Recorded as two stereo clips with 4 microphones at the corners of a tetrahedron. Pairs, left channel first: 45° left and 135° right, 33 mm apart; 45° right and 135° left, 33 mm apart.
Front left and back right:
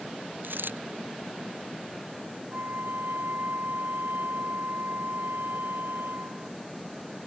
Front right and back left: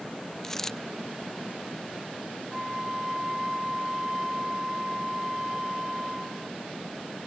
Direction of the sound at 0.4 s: 125° right.